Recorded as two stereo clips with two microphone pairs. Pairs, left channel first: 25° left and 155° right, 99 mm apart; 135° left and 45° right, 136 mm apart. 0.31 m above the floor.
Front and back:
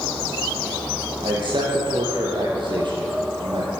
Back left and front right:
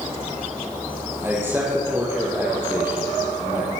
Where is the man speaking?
120° right, 8.5 m.